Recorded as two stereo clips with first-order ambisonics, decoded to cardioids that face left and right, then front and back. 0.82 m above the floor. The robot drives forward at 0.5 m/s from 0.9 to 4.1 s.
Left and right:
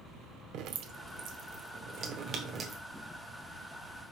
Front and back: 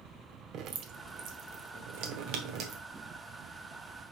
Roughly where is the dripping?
Behind right.